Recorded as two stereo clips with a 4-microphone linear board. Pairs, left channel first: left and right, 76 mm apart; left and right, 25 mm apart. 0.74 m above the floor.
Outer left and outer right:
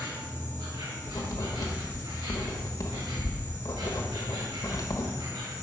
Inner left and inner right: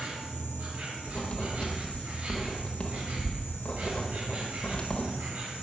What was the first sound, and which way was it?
An insect, 85° right.